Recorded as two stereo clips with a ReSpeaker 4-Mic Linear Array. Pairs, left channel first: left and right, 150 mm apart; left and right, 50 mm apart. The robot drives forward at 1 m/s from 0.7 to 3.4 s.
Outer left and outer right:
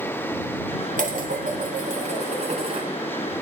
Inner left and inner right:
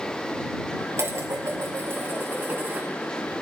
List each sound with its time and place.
1.0 s dishes clattering: 70° right (ahead or behind), 1.8 m; by 2.9 s 40° right (ahead or behind), 2.5 m